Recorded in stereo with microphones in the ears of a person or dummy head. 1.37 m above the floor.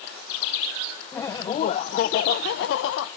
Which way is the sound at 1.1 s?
10° left (ahead or behind).